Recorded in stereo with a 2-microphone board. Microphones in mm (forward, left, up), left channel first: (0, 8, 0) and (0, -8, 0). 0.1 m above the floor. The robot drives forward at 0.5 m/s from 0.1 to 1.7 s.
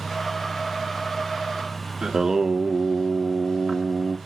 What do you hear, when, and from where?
2.0 s singing: 35° right (ahead or behind), 0.5 m